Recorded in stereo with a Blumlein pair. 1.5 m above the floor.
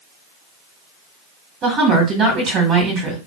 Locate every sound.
1.6 s a woman speaking: 30° right, 1.7 m